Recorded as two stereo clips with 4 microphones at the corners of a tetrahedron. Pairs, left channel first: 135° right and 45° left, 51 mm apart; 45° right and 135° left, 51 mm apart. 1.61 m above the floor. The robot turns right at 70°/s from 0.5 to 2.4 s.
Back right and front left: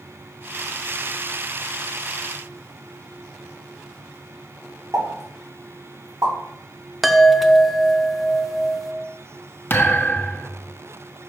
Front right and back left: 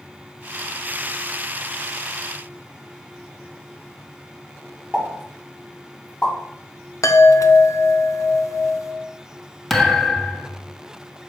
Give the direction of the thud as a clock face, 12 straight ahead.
4 o'clock.